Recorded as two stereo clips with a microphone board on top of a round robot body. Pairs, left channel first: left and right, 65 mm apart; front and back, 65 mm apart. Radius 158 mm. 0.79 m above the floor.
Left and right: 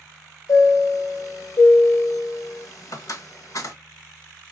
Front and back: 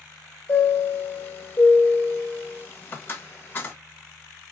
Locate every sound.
0.5 s a chime: 60° left, 1.4 m